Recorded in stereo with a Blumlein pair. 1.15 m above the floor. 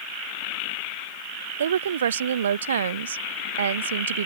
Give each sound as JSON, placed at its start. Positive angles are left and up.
{"t": 1.6, "sound": "a woman speaking", "azimuth_deg": -65}